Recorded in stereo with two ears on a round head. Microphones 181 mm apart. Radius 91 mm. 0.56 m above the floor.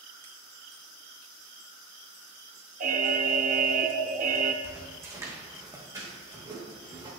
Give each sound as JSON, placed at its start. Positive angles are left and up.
{"t": 2.8, "sound": "an alarm", "side_deg": -40, "distance_m": 0.6}
{"t": 4.6, "sound": "footsteps", "side_deg": -10, "distance_m": 2.0}